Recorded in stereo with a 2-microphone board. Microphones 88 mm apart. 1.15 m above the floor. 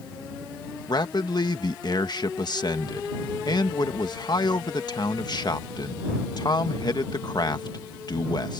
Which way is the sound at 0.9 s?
50° left (ahead or behind).